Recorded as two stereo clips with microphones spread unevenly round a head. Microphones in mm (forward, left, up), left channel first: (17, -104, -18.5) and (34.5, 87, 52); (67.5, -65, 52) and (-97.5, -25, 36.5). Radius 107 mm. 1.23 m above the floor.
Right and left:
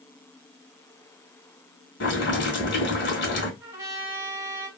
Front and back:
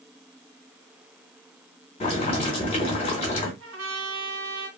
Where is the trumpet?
150° left, 1.0 m.